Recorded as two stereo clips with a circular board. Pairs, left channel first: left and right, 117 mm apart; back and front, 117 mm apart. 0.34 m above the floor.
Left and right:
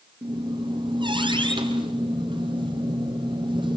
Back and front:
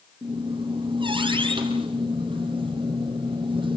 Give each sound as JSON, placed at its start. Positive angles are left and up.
{"t": 0.2, "sound": "a squeak", "azimuth_deg": -45, "distance_m": 5.0}